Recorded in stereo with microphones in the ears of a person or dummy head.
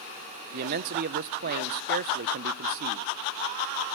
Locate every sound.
0.5 s a man speaking: 55° right (ahead or behind), 0.5 m